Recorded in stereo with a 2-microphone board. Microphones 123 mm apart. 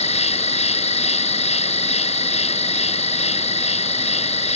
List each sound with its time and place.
0.0 s an insect: 60° left (ahead or behind)